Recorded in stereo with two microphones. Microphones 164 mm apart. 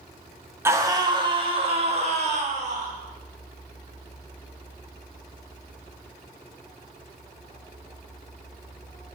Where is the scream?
15° right (ahead or behind), 1.3 m; by 2.9 s 50° right (ahead or behind), 2.5 m.